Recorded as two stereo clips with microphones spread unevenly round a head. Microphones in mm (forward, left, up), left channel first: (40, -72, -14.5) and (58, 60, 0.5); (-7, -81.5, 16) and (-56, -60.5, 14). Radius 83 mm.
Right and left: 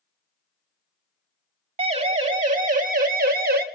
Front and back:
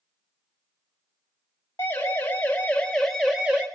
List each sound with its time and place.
1.8 s a siren: 40° left, 4.5 m; by 3.6 s 80° left, 2.5 m